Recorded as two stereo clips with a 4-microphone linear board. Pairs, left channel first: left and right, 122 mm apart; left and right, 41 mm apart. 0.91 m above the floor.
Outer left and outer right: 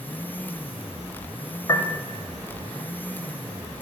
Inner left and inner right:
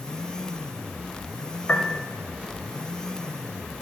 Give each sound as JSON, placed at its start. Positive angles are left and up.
{"t": 1.7, "sound": "a piano", "side_deg": 30, "distance_m": 0.8}